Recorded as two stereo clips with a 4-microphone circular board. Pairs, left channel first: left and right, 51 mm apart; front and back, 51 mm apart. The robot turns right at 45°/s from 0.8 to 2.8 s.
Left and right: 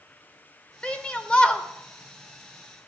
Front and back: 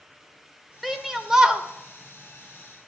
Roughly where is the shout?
Left.